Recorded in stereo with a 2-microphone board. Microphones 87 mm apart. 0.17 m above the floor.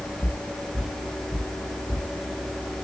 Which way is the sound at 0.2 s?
20° left (ahead or behind).